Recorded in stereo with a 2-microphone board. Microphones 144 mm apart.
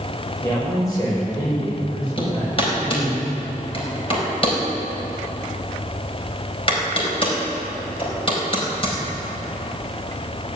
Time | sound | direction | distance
0.4 | a man speaking | 20° left (ahead or behind) | 6 m
2.2 | hammering | 40° left (ahead or behind) | 4.5 m